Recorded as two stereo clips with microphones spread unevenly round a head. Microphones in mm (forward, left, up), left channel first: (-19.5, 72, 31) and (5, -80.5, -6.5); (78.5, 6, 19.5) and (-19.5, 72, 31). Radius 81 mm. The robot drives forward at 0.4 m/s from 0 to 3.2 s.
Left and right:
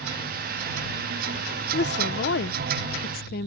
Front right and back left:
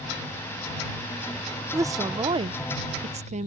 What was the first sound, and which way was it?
A woman speaking, 80° left.